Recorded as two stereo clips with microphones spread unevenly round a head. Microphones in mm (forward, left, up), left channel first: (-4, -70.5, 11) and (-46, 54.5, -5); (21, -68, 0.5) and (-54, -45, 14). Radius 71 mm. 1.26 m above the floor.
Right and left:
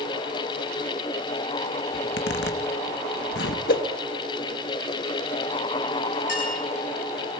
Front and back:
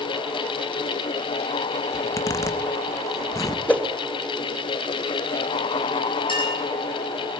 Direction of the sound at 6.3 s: 35° right.